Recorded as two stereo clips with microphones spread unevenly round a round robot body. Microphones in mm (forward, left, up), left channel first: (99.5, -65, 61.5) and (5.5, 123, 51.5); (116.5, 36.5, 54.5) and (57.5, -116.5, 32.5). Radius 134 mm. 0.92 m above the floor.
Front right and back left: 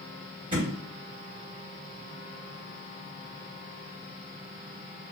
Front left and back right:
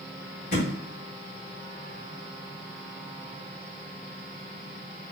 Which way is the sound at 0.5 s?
50° left.